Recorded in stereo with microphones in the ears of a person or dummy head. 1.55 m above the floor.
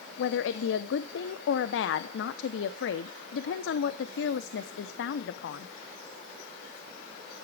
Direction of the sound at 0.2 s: 70° left (ahead or behind).